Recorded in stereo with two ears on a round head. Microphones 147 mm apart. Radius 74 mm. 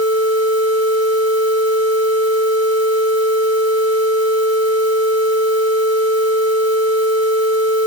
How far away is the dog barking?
No dog barking in this recording.